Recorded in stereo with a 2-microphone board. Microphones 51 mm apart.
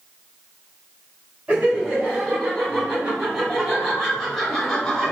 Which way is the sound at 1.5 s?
25° right (ahead or behind).